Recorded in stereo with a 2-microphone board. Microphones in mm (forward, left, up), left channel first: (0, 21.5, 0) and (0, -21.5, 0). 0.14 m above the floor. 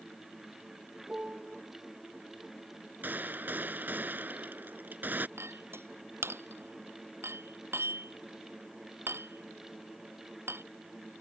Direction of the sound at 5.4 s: 70° right (ahead or behind).